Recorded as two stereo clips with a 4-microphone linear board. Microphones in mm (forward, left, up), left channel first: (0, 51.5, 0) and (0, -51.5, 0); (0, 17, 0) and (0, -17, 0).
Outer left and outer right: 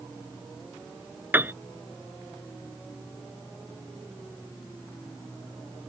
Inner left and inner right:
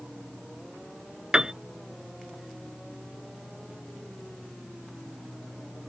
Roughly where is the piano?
Centre.